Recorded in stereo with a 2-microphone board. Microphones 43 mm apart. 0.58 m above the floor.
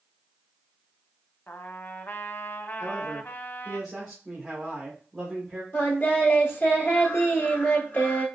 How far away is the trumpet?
About 0.6 m.